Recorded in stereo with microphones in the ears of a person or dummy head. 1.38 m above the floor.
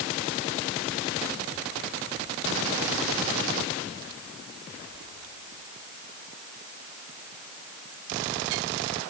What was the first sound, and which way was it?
Only background noise.